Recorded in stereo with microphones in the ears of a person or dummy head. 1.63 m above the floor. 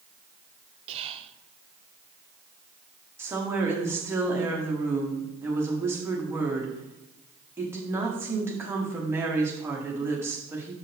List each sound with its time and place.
0.9 s whispering: 35° right (ahead or behind), 0.8 m
3.2 s a woman speaking: 15° right (ahead or behind), 1.3 m